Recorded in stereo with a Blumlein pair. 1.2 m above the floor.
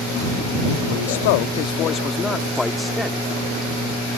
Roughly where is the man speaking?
Ahead left.